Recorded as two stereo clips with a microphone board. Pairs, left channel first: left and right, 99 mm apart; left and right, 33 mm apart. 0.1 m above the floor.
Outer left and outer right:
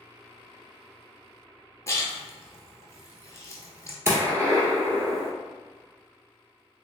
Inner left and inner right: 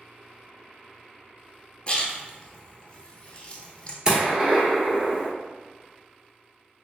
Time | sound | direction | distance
1.9 | a splash | 30° left (ahead or behind) | 0.7 m
4.0 | a gunshot | 25° right (ahead or behind) | 1.2 m